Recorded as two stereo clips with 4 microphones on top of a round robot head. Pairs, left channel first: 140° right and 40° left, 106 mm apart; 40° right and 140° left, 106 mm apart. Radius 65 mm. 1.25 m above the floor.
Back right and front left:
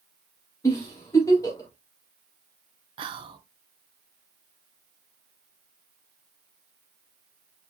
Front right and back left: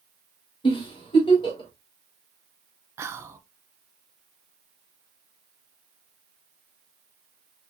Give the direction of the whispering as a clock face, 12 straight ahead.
9 o'clock.